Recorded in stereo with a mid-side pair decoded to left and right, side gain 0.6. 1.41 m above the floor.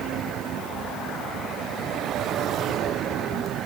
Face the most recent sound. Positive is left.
No sound to turn to.